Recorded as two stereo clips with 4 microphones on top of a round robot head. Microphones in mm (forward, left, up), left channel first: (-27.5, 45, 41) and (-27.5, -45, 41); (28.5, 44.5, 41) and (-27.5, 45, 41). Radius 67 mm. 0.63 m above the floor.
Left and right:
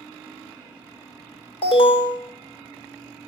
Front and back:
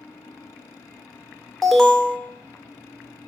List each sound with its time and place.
1.6 s an alarm: 85° left, 1.9 m